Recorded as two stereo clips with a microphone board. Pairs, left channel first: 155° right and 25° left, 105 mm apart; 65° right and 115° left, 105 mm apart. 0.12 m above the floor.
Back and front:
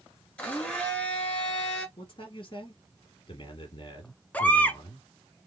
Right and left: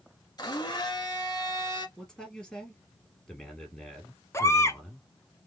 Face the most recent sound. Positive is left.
turn(degrees=-95)